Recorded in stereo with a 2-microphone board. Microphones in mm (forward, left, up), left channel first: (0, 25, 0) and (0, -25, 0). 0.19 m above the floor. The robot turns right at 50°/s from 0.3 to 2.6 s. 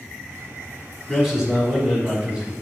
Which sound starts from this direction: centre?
A man speaking, at 1.1 s.